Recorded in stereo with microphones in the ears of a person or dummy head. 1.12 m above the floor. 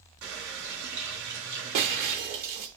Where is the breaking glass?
35° right (ahead or behind), 0.9 m.